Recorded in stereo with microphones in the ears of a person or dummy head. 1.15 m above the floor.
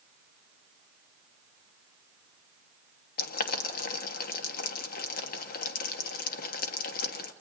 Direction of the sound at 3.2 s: 55° left (ahead or behind).